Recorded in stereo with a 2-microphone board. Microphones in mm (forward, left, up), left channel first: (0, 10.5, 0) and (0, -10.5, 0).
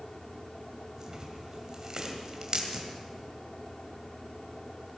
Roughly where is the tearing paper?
Right.